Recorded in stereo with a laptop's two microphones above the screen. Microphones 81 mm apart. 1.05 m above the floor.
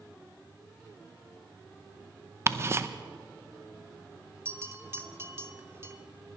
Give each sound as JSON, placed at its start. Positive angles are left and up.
{"t": 2.5, "sound": "ticking", "side_deg": -30, "distance_m": 0.6}
{"t": 4.5, "sound": "a bell", "side_deg": -30, "distance_m": 0.7}